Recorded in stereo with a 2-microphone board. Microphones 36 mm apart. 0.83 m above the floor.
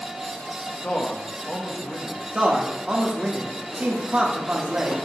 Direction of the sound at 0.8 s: 45° left (ahead or behind).